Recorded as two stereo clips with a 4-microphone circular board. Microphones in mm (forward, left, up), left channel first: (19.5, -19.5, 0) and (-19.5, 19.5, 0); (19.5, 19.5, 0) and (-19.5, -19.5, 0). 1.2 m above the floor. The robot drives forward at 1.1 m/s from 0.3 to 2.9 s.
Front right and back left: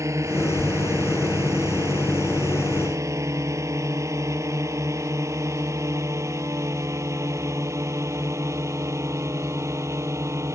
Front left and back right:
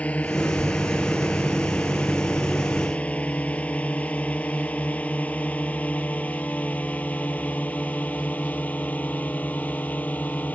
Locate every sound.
0.0 s a drone: 110° left; by 10.6 s 105° left